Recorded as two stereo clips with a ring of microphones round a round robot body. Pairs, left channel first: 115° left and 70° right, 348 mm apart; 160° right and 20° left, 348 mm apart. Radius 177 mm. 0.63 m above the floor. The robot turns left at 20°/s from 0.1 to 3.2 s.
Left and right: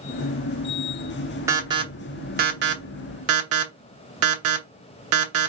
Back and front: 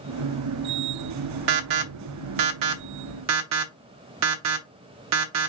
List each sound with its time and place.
1.5 s an alarm: 15° left, 0.9 m; by 5.5 s 20° right, 0.9 m